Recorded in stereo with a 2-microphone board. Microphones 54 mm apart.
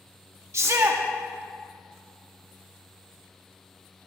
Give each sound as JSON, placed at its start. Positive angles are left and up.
{"t": 0.5, "sound": "a shout", "side_deg": -55, "distance_m": 1.0}